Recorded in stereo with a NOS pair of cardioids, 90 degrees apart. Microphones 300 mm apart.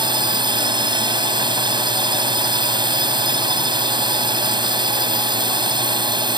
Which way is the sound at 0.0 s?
15° right.